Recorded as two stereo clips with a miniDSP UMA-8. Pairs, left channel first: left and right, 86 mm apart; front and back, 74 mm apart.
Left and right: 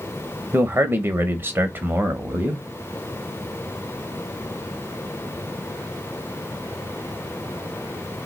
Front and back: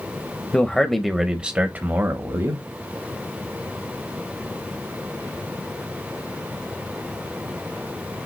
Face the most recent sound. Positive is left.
turn(degrees=-150)